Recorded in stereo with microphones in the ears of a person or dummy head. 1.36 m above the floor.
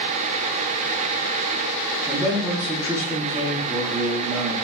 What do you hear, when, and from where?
2.1 s a man speaking: 10° right (ahead or behind), 2.5 m